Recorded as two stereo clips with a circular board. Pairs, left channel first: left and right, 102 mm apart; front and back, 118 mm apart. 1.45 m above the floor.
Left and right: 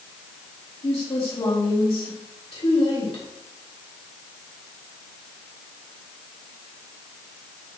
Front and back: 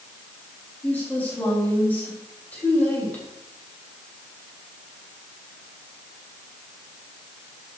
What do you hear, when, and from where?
0.8 s a woman speaking: 75° left, 3.5 m